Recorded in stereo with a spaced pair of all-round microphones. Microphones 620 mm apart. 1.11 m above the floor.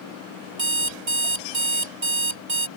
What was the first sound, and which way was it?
An alarm clock, 65° right (ahead or behind).